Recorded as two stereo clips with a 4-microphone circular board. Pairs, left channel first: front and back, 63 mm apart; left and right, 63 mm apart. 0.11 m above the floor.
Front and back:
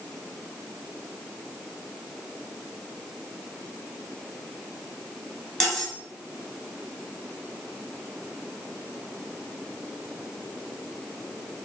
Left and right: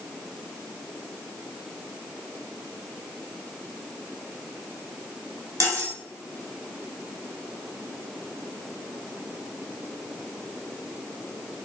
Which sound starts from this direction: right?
Cutlery clinking, at 5.6 s.